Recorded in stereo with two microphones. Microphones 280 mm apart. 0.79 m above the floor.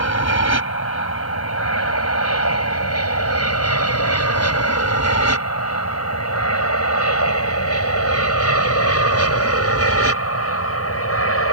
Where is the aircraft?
65° left (ahead or behind); by 11.5 s 55° left (ahead or behind).